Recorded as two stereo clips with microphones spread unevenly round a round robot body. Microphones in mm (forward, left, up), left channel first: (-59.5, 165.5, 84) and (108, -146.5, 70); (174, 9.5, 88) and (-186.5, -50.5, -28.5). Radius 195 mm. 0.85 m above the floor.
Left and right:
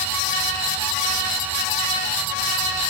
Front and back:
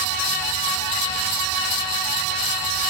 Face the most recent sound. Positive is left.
No sound to turn to.